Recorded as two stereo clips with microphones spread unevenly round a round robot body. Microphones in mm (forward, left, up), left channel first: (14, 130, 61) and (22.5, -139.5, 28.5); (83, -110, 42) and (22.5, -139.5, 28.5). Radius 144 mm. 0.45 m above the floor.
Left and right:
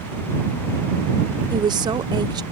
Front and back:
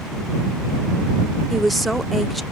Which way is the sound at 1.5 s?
90° right.